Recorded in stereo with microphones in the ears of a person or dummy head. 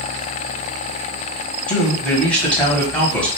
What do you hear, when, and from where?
1.7 s a man speaking: 5° left (ahead or behind), 1.1 m